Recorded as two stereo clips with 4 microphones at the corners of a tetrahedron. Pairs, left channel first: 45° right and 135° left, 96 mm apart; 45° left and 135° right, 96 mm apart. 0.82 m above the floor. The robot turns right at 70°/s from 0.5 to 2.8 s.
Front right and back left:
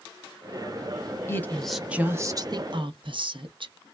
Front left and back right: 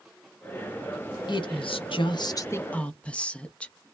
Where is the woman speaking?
15° left, 0.7 m; by 3.8 s 120° left, 0.7 m.